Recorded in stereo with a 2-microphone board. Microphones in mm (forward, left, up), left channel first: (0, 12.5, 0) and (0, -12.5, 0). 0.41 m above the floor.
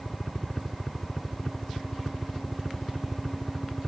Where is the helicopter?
15° left (ahead or behind); by 3.9 s 20° left (ahead or behind).